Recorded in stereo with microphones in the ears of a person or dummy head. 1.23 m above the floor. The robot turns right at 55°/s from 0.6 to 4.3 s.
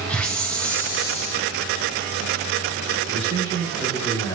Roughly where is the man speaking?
Ahead right.